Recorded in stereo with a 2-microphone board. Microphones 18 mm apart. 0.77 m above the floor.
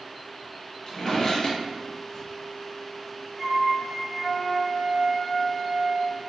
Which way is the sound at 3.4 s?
5° right (ahead or behind).